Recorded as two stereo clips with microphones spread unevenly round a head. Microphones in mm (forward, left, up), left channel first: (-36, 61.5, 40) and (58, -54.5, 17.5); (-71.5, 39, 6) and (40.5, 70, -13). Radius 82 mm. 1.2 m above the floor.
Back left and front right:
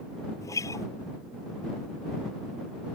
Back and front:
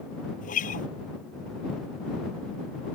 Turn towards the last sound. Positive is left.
turn(degrees=-160)